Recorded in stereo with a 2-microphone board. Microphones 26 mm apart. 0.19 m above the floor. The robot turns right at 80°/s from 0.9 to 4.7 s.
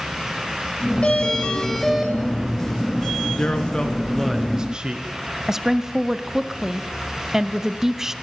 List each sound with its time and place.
1.0 s a doorbell: 100° left, 3 m; by 2.1 s 170° right, 3 m
3.4 s a man speaking: 115° left, 2.5 m; by 5.1 s 140° right, 2.5 m
5.5 s a woman speaking: 20° right (ahead or behind), 1.0 m